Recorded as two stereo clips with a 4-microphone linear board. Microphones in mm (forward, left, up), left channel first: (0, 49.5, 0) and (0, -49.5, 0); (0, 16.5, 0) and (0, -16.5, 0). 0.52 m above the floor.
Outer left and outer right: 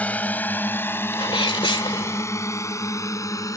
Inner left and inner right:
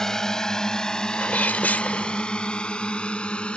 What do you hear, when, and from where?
0.0 s a drone: 15° left (ahead or behind); by 3.6 s 35° left (ahead or behind)
1.1 s a sneeze: 60° left (ahead or behind)